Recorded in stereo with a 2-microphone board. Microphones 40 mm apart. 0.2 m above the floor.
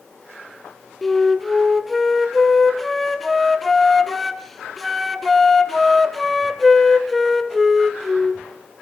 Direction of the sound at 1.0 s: 5° left (ahead or behind).